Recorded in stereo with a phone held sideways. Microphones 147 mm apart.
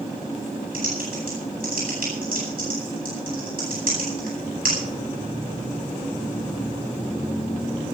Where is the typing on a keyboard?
80° right, 10 m.